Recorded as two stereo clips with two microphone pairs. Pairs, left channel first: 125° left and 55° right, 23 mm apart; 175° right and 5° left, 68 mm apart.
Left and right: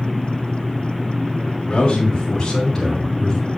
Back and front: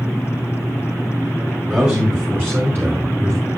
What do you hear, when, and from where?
1.7 s a man speaking: 70° left, 2.5 m; by 3.4 s 50° left, 2.5 m